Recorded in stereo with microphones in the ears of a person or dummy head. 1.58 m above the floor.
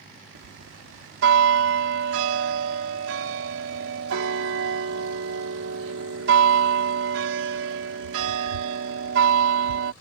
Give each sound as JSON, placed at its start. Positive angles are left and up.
{"t": 0.3, "sound": "a bell", "side_deg": -85}